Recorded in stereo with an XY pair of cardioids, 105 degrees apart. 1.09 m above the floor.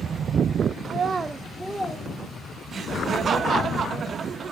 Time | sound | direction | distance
0.8 | a child speaking | 60° right | 0.6 m
2.7 | laughter | 50° right | 1.1 m